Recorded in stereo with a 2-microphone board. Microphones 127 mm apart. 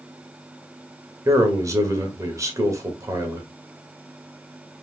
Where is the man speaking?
25° right (ahead or behind), 1.2 m.